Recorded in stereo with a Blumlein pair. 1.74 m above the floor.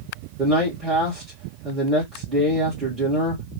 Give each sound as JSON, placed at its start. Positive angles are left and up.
{"t": 0.4, "sound": "a man speaking", "azimuth_deg": -15, "distance_m": 1.8}